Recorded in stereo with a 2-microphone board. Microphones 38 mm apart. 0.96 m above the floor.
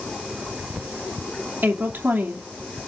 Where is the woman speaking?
65° right (ahead or behind), 2.5 m.